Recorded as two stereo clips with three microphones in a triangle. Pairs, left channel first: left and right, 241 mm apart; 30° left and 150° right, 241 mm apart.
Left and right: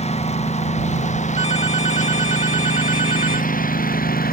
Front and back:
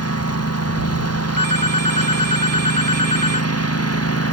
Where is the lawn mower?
25° left; by 4.3 s 40° left.